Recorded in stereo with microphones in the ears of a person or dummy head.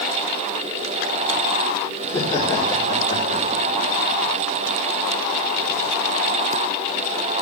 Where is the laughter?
10° left (ahead or behind), 3 m; by 3.8 s 35° left (ahead or behind), 4 m.